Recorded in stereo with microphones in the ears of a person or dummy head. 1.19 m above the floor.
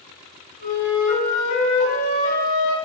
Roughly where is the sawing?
I don't hear sawing.